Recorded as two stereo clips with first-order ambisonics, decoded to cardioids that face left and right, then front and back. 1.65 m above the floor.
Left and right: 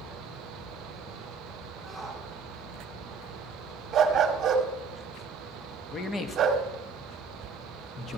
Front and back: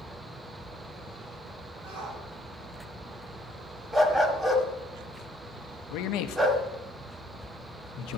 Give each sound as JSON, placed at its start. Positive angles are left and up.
{"t": 1.8, "sound": "a shout", "azimuth_deg": 170, "distance_m": 5.5}
{"t": 3.9, "sound": "a dog barking", "azimuth_deg": -105, "distance_m": 1.3}
{"t": 5.9, "sound": "a man speaking", "azimuth_deg": 20, "distance_m": 1.0}